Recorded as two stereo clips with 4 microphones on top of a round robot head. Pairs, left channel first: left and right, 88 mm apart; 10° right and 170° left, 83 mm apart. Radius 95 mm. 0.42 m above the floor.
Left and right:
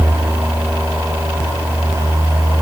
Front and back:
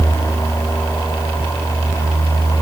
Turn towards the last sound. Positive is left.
No sound to turn to.